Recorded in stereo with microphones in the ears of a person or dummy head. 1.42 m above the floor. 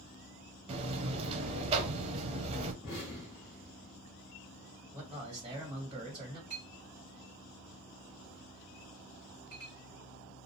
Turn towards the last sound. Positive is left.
turn(degrees=-30)  # may be behind; listen again after turning